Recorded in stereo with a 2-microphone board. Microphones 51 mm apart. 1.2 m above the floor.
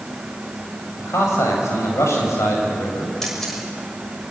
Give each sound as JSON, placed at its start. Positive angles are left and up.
{"t": 1.0, "sound": "a man speaking", "side_deg": 75, "distance_m": 8.0}
{"t": 3.2, "sound": "a camera shutter", "side_deg": 5, "distance_m": 6.0}